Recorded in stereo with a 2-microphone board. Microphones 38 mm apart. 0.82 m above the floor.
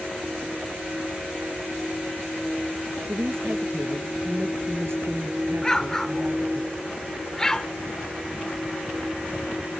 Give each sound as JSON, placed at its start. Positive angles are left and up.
{"t": 3.1, "sound": "a woman speaking", "side_deg": -85}
{"t": 5.6, "sound": "an explosion", "side_deg": 15}